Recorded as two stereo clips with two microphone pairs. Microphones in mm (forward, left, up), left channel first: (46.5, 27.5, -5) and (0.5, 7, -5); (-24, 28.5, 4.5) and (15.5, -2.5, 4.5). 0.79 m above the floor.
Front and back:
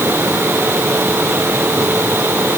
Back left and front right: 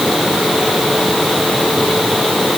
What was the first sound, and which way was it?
Only background noise.